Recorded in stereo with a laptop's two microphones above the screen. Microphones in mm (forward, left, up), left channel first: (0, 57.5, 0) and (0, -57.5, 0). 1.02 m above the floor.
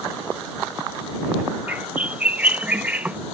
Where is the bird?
15° right (ahead or behind).